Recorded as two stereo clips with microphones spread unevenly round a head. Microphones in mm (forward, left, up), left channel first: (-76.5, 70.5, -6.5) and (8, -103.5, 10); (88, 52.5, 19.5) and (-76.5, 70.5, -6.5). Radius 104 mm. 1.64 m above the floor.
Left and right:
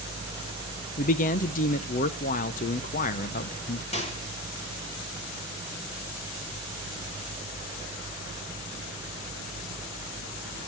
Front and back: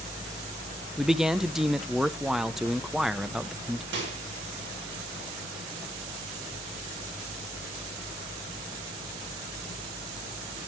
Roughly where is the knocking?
No knocking in this recording.